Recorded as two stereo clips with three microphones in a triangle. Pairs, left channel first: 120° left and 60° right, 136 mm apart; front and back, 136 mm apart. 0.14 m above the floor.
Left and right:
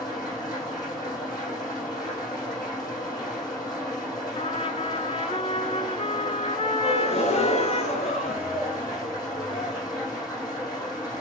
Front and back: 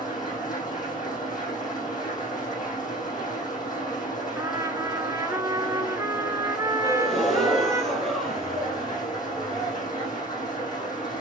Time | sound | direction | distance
0.0 | an engine running | 60° left | 5.5 m
4.3 | a trumpet | 125° left | 0.8 m
6.8 | a gasp | 85° left | 3 m